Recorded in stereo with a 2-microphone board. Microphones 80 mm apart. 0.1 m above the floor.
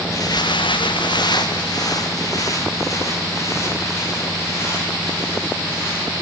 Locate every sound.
0.1 s footsteps: 45° left (ahead or behind), 1.1 m; by 6.1 s 35° left (ahead or behind), 8.5 m